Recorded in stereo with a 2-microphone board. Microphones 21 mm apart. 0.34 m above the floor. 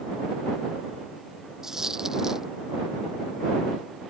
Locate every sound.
1.6 s a dropped coin: 20° right (ahead or behind)